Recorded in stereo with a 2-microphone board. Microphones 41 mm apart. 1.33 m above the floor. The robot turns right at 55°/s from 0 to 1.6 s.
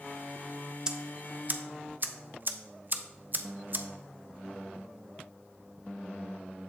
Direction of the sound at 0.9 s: 20° right (ahead or behind).